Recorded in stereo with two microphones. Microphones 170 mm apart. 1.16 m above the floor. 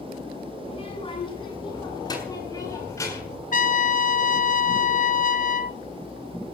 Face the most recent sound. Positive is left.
turn(degrees=50)  # may be behind; listen again after turning